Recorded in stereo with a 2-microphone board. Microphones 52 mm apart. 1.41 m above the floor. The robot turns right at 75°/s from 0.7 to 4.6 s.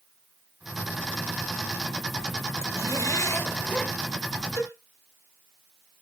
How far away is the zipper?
About 1.8 m.